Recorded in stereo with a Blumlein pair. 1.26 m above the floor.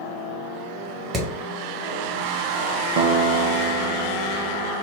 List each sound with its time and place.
1.1 s hammering: 25° right, 1.6 m
3.0 s a guitar: 50° right, 0.6 m